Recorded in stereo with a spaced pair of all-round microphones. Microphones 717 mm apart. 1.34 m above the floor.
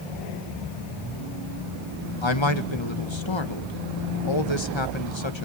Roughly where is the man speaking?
Left.